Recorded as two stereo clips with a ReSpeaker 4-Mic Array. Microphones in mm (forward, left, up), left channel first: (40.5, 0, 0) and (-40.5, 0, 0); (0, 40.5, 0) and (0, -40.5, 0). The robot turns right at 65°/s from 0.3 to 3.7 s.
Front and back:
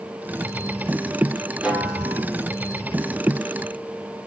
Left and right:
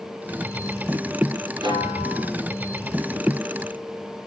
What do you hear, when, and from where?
1.6 s a snare drum: 105° right, 4 m; by 2.3 s 60° right, 4 m